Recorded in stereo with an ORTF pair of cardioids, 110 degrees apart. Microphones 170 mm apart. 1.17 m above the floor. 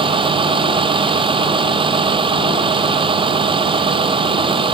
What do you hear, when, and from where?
0.0 s a vehicle: 30° right